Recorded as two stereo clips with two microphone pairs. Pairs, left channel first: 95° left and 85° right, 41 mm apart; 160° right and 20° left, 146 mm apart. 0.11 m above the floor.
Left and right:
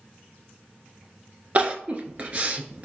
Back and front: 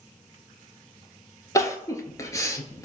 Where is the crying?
110° right, 0.6 m.